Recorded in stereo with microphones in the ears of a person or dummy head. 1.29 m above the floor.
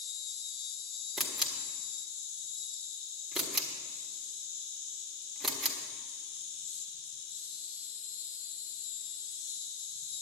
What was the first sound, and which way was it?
An insect, 60° left (ahead or behind).